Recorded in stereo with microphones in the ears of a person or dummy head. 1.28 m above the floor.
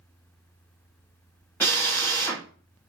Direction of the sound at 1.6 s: 5° left (ahead or behind).